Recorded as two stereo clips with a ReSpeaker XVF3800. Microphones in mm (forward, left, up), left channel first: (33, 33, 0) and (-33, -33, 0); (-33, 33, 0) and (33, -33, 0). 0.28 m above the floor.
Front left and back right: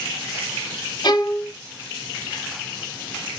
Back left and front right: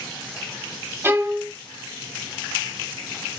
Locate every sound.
1.0 s a violin: 15° left, 1.2 m